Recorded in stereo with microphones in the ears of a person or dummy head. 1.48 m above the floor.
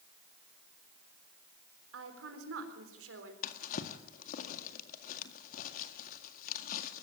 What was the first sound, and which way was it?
A woman speaking, 80° right.